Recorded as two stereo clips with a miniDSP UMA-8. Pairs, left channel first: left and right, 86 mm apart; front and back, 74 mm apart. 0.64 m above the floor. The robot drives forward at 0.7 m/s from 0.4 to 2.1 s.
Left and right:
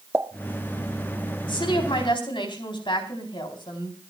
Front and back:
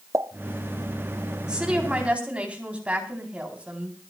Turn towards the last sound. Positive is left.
turn(degrees=110)